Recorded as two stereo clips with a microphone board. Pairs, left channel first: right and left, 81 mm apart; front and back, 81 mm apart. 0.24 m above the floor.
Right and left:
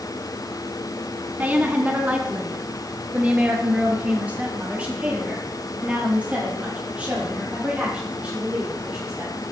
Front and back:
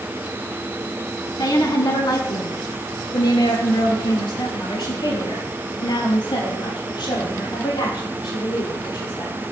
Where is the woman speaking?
25° left, 1.8 m; by 9.4 s 15° left, 7.5 m.